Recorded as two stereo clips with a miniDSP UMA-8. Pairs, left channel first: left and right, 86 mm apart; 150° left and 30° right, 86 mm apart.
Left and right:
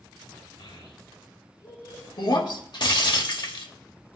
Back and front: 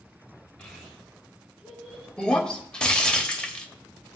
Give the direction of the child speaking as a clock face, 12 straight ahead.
10 o'clock.